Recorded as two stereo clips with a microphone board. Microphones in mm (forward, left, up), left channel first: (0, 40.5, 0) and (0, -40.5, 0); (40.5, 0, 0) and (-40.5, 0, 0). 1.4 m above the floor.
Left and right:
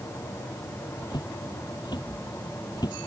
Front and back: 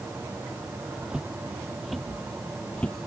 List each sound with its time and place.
1.1 s footsteps: 105° left; by 3.1 s 70° left